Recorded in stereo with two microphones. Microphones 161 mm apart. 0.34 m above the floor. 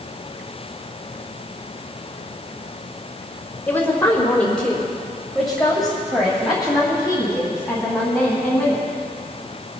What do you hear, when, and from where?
3.7 s a woman speaking: 10° left (ahead or behind), 1.5 m; by 8.9 s 5° right (ahead or behind), 3.5 m